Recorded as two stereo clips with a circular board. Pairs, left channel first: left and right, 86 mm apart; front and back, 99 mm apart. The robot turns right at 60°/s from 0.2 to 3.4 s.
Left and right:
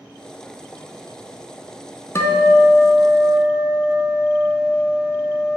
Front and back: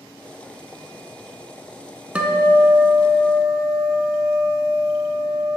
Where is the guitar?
110° left, 0.5 m; by 5.6 s 175° right, 0.5 m.